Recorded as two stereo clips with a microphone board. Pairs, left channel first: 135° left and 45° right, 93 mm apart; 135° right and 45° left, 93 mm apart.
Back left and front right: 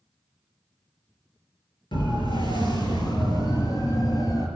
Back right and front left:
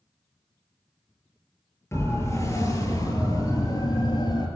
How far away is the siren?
About 6 m.